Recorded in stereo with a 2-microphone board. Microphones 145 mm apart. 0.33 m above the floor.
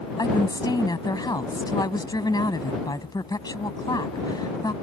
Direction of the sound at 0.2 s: 30° left (ahead or behind).